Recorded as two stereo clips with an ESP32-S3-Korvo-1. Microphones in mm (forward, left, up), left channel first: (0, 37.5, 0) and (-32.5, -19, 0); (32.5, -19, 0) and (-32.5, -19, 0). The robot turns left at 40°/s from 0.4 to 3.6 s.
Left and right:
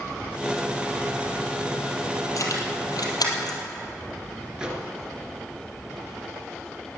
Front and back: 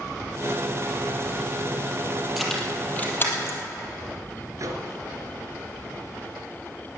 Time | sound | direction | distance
2.4 | keys jangling | 90° left | 3 m
4.6 | a microwave | 165° left | 2 m